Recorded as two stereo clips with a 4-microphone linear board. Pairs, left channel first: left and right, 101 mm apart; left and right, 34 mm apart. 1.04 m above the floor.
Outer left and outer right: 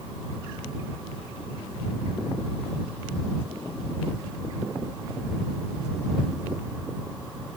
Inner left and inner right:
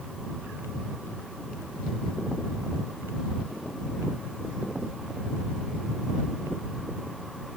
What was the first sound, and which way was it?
Only background noise.